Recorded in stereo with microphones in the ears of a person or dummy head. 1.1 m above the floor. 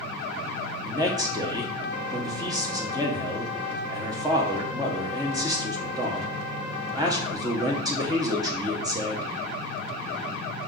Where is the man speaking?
15° right (ahead or behind), 0.7 m.